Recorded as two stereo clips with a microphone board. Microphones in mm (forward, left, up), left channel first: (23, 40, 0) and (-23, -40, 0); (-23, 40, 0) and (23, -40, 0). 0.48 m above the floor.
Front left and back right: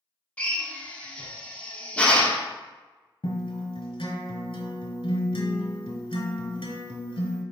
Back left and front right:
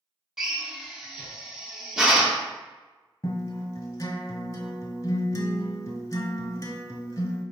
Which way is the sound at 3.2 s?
70° left.